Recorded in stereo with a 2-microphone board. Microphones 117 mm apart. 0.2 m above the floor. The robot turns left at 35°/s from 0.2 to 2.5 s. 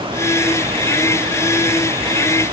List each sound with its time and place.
Only background noise.